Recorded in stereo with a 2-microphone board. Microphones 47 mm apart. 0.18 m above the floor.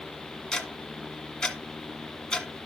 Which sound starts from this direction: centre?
Ticking, at 0.5 s.